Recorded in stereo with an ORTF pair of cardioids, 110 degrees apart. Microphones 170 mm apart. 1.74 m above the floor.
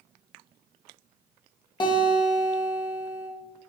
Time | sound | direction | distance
1.8 | a guitar | 25° left | 1.8 m